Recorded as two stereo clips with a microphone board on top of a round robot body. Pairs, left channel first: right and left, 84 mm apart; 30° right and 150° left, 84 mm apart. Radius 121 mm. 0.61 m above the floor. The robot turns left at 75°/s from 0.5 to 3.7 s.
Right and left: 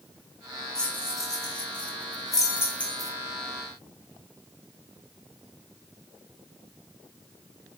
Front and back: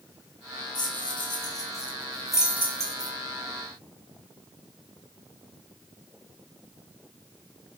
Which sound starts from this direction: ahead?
Keys jangling, at 0.8 s.